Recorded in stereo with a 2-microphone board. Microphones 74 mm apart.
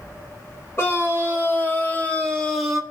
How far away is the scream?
About 3 m.